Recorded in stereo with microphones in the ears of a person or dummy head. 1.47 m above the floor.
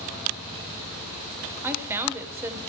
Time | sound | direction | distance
1.6 | a woman speaking | 10° right (ahead or behind) | 1.1 m